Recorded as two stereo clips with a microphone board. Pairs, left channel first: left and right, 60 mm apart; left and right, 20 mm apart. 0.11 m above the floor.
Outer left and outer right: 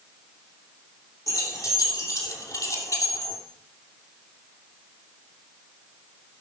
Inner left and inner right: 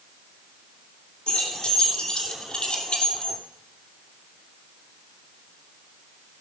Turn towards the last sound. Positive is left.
turn(degrees=65)  # may be behind; listen again after turning